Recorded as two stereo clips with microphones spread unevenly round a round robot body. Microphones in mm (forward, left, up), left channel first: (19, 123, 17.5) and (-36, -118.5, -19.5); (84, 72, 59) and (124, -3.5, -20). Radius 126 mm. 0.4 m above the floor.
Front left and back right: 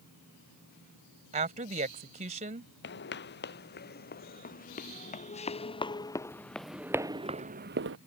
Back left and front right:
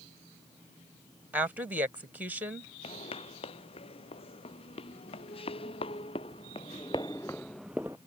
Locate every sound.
1.3 s a woman speaking: 45° right
2.8 s footsteps: 125° left; by 8.0 s 145° right